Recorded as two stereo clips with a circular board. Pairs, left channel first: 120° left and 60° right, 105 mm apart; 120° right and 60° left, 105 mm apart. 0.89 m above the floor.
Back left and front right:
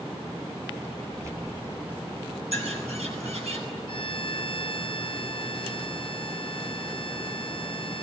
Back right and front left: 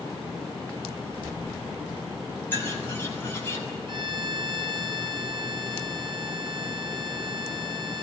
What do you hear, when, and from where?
1.1 s keys jangling: 5° right, 2.5 m; by 2.4 s 25° left, 3 m
2.5 s a bird: 50° right, 9 m
3.9 s a violin: 90° left, 3 m